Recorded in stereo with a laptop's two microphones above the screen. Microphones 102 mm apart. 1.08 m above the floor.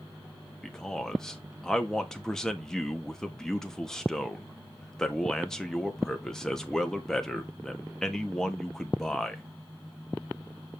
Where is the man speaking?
5° left (ahead or behind), 1.6 m.